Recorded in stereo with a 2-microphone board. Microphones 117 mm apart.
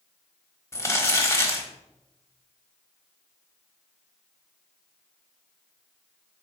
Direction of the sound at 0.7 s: 25° left (ahead or behind).